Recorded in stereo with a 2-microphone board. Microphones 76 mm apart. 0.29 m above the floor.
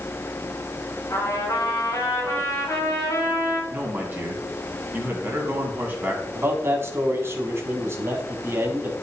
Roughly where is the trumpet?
Left.